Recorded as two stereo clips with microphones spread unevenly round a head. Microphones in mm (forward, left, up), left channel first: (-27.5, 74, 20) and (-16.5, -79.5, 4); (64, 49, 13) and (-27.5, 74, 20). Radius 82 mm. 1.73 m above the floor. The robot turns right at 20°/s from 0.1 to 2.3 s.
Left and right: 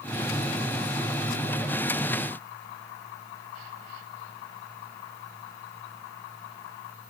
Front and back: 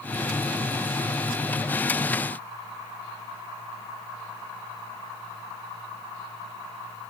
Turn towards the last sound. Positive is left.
No sound to turn to.